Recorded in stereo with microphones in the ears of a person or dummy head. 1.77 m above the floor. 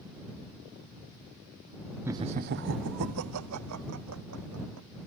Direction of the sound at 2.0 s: 10° right (ahead or behind).